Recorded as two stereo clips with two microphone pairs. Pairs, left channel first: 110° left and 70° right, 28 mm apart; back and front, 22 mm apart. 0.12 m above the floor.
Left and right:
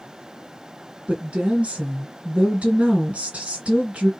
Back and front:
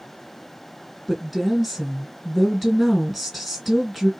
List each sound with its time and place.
1.1 s a woman speaking: 85° right, 2 m